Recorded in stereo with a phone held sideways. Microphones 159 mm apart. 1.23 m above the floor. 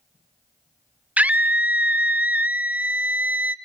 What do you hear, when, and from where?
1.2 s a scream: 10° right (ahead or behind), 0.5 m